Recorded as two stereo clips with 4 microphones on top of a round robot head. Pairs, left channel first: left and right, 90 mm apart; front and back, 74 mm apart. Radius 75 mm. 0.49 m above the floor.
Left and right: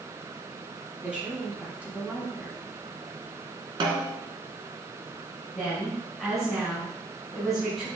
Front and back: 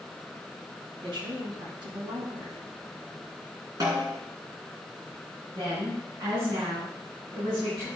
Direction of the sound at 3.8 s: 125° right.